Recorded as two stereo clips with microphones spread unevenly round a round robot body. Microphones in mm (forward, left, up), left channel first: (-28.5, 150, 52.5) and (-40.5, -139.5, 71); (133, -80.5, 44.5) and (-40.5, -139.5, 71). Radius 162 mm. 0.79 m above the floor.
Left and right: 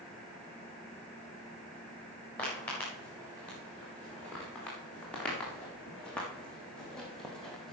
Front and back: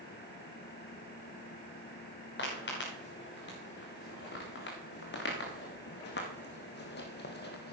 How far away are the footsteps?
About 4.5 m.